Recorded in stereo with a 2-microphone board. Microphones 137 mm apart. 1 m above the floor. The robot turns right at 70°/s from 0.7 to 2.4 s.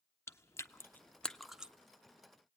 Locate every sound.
0.3 s chewing: 20° left (ahead or behind), 0.5 m; by 1.7 s 10° right (ahead or behind), 0.5 m